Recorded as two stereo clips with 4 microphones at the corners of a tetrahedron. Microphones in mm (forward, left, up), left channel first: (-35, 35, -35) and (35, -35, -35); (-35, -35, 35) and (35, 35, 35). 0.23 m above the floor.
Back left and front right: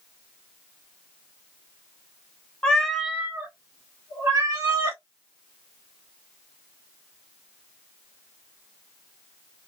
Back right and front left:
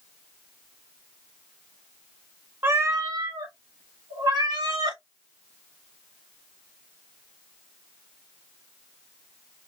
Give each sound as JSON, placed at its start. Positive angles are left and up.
{"t": 2.6, "sound": "a cat meowing", "azimuth_deg": 70, "distance_m": 0.6}